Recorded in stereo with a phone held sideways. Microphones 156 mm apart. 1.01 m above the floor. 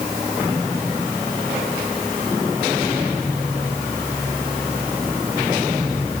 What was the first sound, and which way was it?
Only background noise.